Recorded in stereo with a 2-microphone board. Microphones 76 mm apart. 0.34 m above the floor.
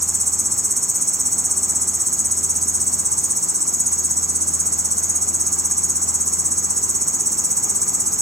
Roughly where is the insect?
Right.